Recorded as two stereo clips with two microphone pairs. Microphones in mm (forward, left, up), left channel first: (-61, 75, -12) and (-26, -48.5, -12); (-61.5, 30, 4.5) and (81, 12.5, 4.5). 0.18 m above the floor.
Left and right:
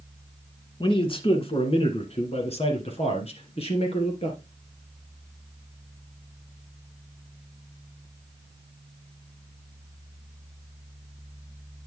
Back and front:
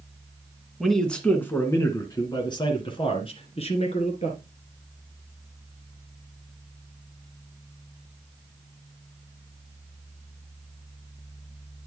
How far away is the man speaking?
About 1.6 m.